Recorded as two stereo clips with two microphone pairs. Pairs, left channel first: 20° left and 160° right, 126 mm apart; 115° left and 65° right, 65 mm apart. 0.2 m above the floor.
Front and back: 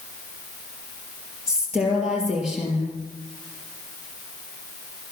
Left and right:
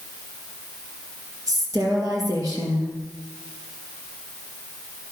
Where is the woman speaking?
75° right, 4.5 m.